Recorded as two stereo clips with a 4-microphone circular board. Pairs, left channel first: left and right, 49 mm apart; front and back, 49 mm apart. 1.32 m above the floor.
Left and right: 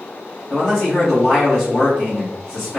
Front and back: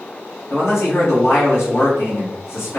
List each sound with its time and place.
0.5 s a man speaking: 20° left, 1.8 m